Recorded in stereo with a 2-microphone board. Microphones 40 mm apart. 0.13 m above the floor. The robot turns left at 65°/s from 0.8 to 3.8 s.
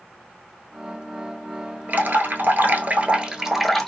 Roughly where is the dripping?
Ahead right.